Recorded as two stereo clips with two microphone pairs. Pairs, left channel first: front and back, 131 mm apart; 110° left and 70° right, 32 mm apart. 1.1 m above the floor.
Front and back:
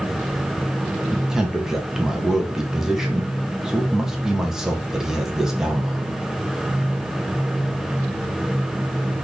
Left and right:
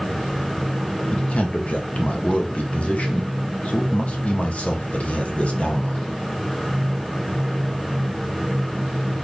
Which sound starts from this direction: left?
A man speaking, at 1.1 s.